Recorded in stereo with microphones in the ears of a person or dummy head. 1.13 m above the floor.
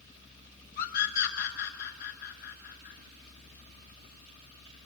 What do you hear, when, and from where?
0.8 s a scream: 50° left (ahead or behind), 3.5 m